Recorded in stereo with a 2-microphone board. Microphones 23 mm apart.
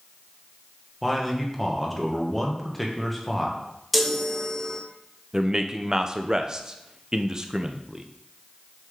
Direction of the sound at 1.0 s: Centre (ahead or behind).